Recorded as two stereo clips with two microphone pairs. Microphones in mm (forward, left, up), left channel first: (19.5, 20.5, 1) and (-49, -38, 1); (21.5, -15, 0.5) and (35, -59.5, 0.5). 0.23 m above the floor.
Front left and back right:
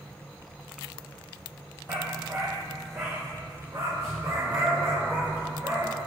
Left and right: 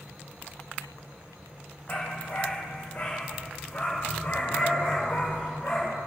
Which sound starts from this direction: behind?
A dog barking, at 1.9 s.